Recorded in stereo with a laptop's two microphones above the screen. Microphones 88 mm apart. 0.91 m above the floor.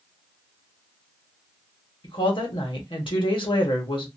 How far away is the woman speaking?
About 1.1 m.